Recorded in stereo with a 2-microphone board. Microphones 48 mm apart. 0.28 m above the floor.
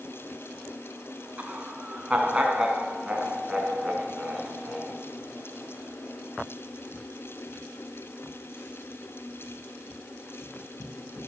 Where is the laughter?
30° right (ahead or behind), 3 m; by 4.9 s 5° left (ahead or behind), 4 m.